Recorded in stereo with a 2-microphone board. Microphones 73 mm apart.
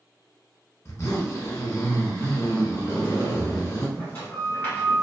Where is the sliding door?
25° left (ahead or behind), 1.4 m.